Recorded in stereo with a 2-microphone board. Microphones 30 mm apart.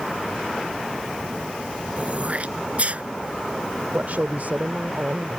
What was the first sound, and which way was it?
Throat clearing, 45° right (ahead or behind).